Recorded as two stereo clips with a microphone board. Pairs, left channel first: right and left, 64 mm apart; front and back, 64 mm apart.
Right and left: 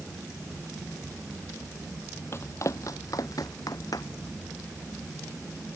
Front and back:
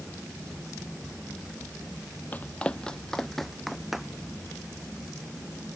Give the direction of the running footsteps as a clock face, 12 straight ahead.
2 o'clock.